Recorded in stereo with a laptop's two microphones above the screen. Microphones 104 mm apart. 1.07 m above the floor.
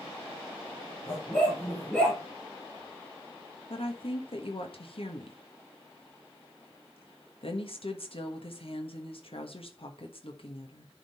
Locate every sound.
1.1 s a dog barking: 15° left (ahead or behind), 6 m; by 2.2 s 10° left (ahead or behind), 6.5 m
3.7 s a woman speaking: 65° left (ahead or behind), 1.3 m